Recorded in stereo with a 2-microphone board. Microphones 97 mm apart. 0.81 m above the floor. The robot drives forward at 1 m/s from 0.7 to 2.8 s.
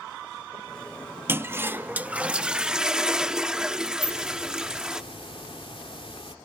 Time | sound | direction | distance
1.3 | a toilet flushing | 20° right (ahead or behind) | ?
4.0 | a hiss | 70° left (ahead or behind) | ?